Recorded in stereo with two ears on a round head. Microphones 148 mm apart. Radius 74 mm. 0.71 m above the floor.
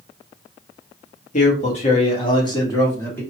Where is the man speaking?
45° left (ahead or behind), 1.4 m; by 3.2 s 10° left (ahead or behind), 1.7 m.